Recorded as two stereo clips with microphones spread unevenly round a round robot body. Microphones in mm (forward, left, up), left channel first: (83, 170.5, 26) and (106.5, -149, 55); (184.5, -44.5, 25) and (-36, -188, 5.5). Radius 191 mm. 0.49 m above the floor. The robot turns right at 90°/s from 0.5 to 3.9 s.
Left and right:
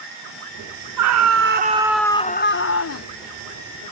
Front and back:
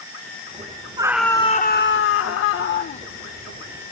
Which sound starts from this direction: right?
A scream, at 1.0 s.